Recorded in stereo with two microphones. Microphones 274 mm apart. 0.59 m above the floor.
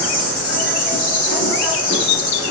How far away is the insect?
About 3.5 m.